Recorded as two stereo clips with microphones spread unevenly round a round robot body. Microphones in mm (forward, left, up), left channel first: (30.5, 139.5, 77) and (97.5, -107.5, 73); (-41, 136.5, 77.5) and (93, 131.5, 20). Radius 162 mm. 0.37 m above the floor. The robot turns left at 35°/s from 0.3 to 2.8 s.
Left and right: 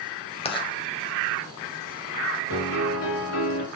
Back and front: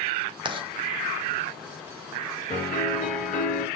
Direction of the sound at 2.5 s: 155° left.